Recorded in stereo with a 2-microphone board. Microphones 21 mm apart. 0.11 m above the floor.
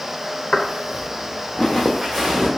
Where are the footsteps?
65° left (ahead or behind), 1.1 m; by 2.5 s 20° right (ahead or behind), 1.2 m.